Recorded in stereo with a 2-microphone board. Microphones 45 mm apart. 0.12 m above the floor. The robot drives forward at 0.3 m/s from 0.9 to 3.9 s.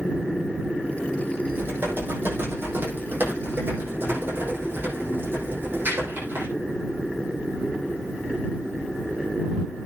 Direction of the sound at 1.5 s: 50° right (ahead or behind).